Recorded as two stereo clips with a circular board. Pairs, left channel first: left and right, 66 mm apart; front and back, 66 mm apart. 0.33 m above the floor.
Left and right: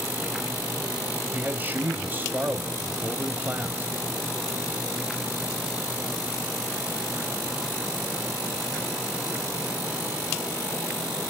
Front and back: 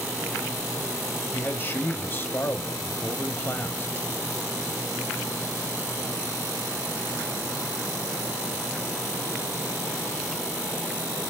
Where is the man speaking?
40° right, 1.5 m.